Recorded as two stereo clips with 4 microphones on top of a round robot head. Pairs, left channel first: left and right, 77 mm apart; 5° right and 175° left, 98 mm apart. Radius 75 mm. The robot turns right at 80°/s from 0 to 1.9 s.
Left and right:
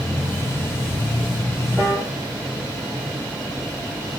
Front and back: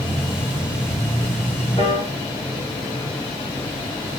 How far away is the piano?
About 0.7 m.